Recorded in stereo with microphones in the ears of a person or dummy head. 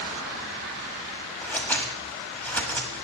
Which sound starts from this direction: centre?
Scissors, at 1.4 s.